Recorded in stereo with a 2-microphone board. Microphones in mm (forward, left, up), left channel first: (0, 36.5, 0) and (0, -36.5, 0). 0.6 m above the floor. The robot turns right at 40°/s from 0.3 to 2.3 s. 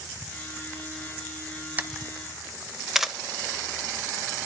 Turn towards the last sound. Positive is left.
turn(degrees=-5)  # may be behind; listen again after turning